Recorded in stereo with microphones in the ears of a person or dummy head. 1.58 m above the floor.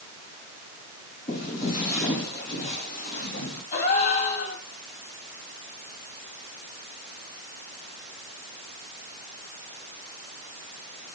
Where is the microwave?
I don't hear a microwave.